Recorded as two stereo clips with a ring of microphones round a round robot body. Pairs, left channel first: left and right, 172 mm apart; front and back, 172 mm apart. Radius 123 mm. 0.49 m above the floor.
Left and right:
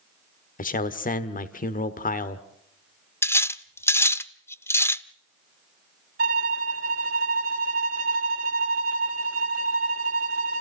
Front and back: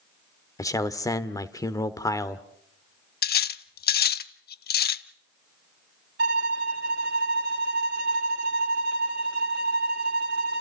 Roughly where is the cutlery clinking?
Ahead.